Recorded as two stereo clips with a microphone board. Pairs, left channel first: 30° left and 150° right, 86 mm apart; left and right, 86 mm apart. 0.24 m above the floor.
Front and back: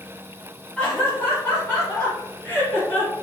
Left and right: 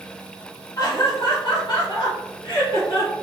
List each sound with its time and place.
0.8 s laughter: 100° left, 1.4 m; by 3.1 s 95° left, 3 m